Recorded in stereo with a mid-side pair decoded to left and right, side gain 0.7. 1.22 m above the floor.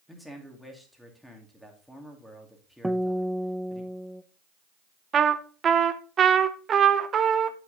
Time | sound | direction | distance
0.1 | a man speaking | 5° left | 2.5 m
2.8 | a guitar | 5° right | 0.5 m
5.1 | a trumpet | 35° right | 0.8 m